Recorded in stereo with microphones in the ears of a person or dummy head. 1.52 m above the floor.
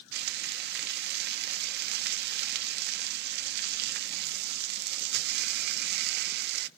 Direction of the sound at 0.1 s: 60° right (ahead or behind).